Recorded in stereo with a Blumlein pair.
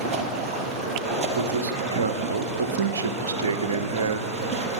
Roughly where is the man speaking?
Ahead right.